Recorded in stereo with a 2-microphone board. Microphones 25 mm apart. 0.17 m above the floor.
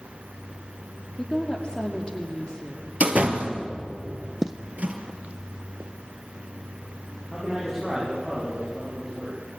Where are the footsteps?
10° right (ahead or behind), 0.5 m; by 5.9 s 60° right (ahead or behind), 1.7 m.